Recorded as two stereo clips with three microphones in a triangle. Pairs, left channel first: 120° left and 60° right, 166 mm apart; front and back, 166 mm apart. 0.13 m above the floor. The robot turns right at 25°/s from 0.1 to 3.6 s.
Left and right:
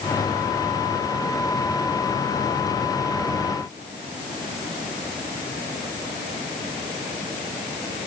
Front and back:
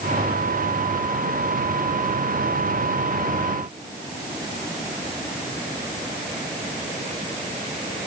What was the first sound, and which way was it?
Only background noise.